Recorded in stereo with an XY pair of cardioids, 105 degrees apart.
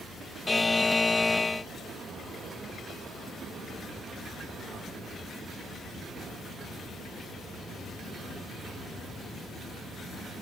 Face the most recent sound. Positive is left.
turn(degrees=20)